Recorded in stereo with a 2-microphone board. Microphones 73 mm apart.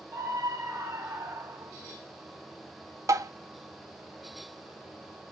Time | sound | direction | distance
0.1 | a scream | 40° right (ahead or behind) | 2.5 m
3.1 | tapping | 50° right (ahead or behind) | 0.9 m